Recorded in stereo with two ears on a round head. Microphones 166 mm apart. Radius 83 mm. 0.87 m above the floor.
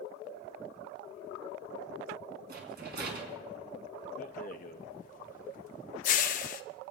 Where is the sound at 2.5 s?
55° right (ahead or behind), 2.5 m.